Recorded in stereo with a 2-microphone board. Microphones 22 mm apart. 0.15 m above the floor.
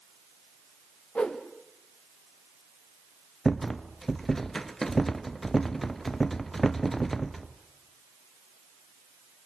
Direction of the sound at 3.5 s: 15° left (ahead or behind).